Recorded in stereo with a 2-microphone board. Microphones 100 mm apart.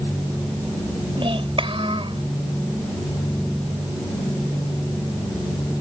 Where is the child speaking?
65° right (ahead or behind).